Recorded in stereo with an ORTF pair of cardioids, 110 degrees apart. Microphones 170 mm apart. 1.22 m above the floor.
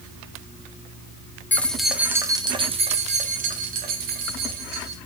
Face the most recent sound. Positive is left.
turn(degrees=-70)